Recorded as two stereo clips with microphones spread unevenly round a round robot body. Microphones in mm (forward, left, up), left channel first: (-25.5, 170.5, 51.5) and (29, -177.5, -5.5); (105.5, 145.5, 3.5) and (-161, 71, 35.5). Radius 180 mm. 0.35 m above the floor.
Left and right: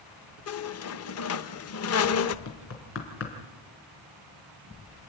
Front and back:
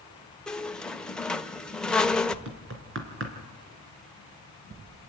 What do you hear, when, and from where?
0.5 s a squeak: 90° left, 0.8 m
2.5 s knocking: 150° left, 3.5 m